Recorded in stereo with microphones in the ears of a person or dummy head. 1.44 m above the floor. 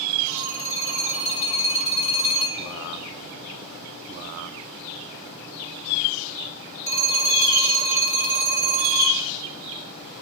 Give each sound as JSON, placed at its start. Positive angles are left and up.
{"t": 0.3, "sound": "a phone ringing", "side_deg": 25, "distance_m": 4.0}